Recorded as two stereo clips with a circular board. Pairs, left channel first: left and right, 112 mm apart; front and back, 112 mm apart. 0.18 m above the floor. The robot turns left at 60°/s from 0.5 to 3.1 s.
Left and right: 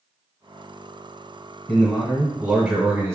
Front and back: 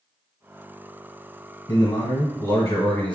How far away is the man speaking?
About 1.1 m.